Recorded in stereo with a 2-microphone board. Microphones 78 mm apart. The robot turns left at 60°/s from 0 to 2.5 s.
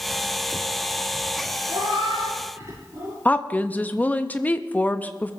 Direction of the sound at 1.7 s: 85° right.